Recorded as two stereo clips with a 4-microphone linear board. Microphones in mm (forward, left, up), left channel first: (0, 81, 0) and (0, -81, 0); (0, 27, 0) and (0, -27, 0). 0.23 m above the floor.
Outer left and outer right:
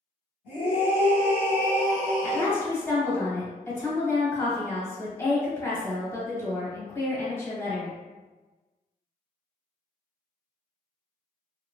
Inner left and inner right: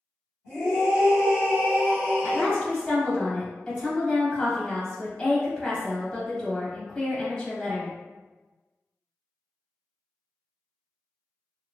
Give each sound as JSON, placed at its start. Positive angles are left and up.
{"t": 0.5, "sound": "a scream", "side_deg": -10, "distance_m": 1.5}
{"t": 2.2, "sound": "a woman speaking", "side_deg": 15, "distance_m": 1.1}